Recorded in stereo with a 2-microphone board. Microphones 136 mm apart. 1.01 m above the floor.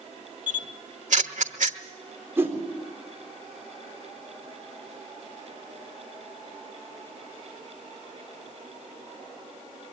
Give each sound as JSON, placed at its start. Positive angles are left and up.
{"t": 0.5, "sound": "a camera shutter", "side_deg": -70, "distance_m": 1.2}
{"t": 2.4, "sound": "a whoosh", "side_deg": -20, "distance_m": 3.5}